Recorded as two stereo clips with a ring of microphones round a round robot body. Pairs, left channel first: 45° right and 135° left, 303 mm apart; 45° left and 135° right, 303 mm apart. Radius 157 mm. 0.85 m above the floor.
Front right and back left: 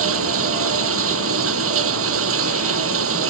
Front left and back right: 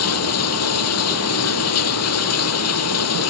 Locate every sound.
0.0 s running water: 85° left